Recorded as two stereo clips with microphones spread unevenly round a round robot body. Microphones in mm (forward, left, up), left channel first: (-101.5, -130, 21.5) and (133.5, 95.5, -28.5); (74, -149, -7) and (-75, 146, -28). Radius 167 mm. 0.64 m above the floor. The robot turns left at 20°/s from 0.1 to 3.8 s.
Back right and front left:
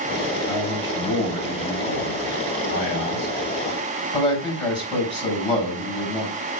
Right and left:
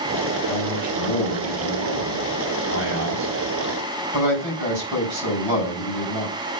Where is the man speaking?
155° right, 4.5 m; by 6.3 s 140° left, 4.5 m.